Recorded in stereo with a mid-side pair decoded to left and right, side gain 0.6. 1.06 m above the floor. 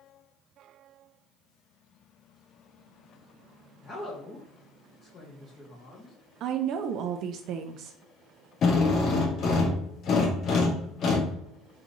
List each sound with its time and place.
3.8 s a woman speaking: 35° left, 1.7 m
6.4 s a woman speaking: 60° right, 0.5 m
8.6 s a drill: 45° left, 1.3 m